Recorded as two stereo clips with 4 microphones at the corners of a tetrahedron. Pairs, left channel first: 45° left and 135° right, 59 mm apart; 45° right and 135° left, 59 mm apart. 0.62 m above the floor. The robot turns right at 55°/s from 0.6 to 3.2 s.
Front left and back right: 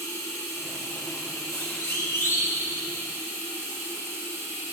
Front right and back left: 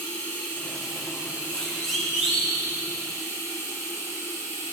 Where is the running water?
25° left, 6 m; by 4.7 s 170° left, 6 m.